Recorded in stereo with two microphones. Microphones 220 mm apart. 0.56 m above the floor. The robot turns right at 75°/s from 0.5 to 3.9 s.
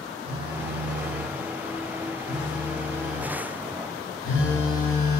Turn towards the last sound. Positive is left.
turn(degrees=80)